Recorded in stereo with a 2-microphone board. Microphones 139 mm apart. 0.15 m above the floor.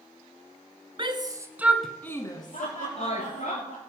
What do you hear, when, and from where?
1.0 s a shout: 35° right (ahead or behind), 1.5 m; by 3.5 s 60° left (ahead or behind), 2 m
2.5 s laughter: 65° left (ahead or behind), 4.5 m